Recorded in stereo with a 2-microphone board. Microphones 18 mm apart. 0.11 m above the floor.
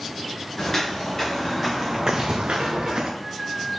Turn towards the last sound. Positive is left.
turn(degrees=-30)  # may be behind; listen again after turning